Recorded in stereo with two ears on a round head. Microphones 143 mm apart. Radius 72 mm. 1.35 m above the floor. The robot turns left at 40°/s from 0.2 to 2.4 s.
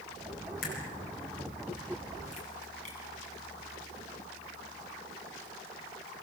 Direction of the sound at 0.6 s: 65° left (ahead or behind).